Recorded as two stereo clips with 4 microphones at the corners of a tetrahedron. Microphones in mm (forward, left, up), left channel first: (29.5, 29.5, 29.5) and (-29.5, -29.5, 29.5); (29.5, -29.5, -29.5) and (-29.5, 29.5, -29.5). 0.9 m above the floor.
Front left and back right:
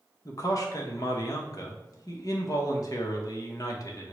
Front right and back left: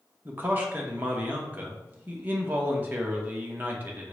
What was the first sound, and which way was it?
A man speaking, 75° left.